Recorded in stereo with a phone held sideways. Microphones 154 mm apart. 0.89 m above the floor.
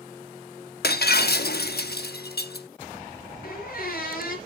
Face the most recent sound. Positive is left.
turn(degrees=70)  # may be behind; listen again after turning